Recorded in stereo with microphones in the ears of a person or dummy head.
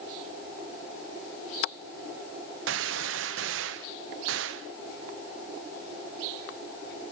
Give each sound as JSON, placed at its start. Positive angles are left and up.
{"t": 2.7, "sound": "a gunshot", "side_deg": -70, "distance_m": 0.8}